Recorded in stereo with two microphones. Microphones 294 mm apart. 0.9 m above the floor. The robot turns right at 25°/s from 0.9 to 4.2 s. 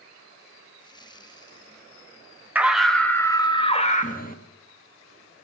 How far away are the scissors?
No scissors in this recording.